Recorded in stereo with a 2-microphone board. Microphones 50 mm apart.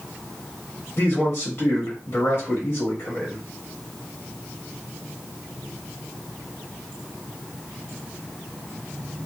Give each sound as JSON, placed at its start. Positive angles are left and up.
{"t": 1.0, "sound": "a man speaking", "side_deg": 45, "distance_m": 1.5}